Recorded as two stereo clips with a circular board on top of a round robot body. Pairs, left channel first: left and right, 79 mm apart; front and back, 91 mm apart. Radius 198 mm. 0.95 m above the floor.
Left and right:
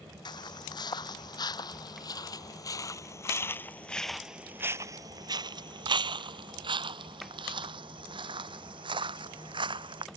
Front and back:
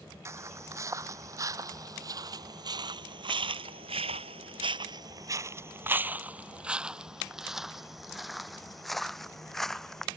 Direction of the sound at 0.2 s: 120° left.